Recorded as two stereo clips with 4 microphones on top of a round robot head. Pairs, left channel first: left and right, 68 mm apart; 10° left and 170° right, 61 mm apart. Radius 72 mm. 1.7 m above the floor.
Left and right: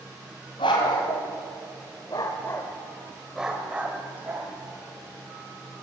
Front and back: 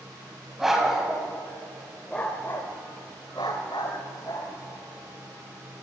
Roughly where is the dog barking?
Left.